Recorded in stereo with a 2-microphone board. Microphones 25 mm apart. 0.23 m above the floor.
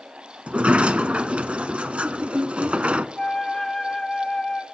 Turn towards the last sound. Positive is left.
turn(degrees=25)  # may be behind; listen again after turning